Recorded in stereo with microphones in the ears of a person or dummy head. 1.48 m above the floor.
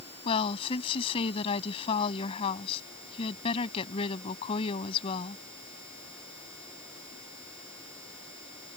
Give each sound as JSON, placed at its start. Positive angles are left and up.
{"t": 0.2, "sound": "a woman speaking", "side_deg": 30}